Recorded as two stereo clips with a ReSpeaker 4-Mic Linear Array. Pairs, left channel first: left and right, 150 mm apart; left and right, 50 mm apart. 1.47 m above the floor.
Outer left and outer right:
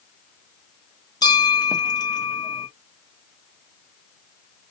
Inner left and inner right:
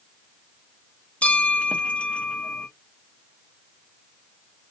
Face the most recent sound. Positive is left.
turn(degrees=30)  # may be behind; listen again after turning